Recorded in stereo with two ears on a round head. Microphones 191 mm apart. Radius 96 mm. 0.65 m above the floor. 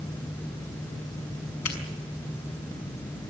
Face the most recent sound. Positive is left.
turn(degrees=80)